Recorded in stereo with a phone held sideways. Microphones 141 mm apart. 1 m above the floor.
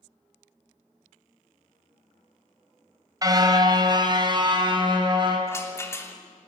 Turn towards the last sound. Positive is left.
turn(degrees=20)  # may be behind; listen again after turning